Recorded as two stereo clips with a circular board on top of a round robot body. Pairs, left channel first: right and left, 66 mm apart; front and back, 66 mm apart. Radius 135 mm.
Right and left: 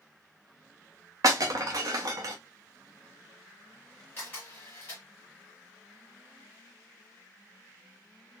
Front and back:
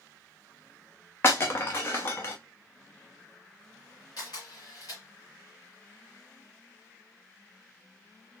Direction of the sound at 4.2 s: 25° right.